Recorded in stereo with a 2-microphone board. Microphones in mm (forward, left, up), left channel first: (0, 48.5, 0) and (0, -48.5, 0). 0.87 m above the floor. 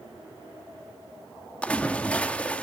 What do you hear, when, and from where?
1.6 s a splash: 10° left (ahead or behind), 1.6 m